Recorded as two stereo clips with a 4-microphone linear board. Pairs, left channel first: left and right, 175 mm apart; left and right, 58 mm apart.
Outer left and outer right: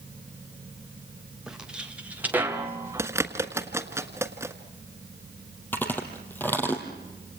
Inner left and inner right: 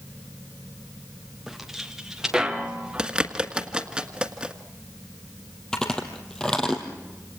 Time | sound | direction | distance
1.5 | footsteps | 5° right (ahead or behind) | 3 m
3.0 | a bird | 15° right (ahead or behind) | 1.5 m
5.7 | chewing | 10° left (ahead or behind) | 3 m